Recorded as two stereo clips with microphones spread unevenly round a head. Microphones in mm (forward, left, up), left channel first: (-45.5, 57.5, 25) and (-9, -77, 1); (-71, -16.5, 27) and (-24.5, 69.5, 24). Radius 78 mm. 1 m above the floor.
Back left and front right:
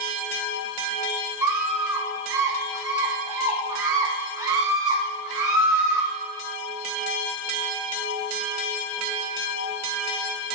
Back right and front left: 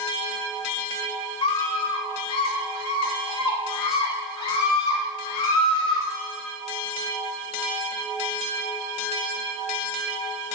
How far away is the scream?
About 4.5 m.